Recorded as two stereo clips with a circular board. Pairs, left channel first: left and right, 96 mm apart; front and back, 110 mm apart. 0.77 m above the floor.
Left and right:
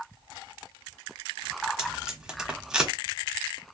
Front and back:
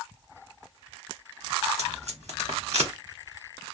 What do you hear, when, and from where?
1.8 s tape being pulled: 170° right, 1.1 m